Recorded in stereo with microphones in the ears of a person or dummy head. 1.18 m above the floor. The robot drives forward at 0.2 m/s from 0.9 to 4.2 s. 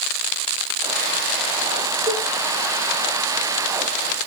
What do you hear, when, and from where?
2.1 s a cowbell: 40° right (ahead or behind), 1.7 m; by 2.2 s 35° right (ahead or behind), 1.8 m